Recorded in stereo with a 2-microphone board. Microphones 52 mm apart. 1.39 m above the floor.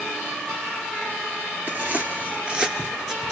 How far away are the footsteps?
About 1.7 m.